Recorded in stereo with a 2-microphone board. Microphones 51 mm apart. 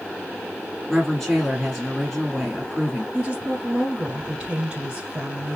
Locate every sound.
0.9 s a woman speaking: 5° left (ahead or behind), 1.3 m
3.1 s a woman speaking: 20° right (ahead or behind), 1.4 m